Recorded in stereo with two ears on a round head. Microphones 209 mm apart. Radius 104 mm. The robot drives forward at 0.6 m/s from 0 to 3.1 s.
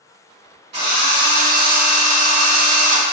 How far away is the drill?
About 1.8 m.